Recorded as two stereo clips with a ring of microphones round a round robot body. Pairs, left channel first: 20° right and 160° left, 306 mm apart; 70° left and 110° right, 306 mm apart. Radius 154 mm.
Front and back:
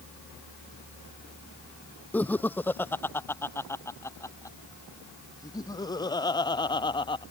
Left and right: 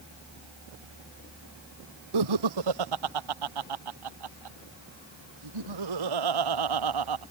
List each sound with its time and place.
2.1 s laughter: 110° right; by 7.2 s 100° right